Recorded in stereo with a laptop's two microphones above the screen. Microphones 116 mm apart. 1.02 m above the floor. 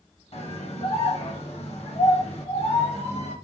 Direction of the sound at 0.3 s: 60° left (ahead or behind).